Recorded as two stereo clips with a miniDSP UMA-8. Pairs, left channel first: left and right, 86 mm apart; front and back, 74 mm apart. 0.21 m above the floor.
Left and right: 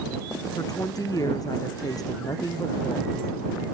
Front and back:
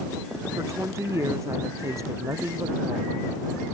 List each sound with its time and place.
0.6 s a woman speaking: 135° left